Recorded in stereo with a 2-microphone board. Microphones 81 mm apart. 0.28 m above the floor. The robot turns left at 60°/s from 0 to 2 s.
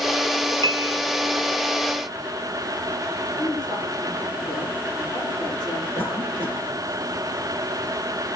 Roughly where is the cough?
Left.